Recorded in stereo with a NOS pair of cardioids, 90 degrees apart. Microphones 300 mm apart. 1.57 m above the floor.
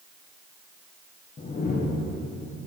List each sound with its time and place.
1.4 s a whoosh: 30° left, 1.2 m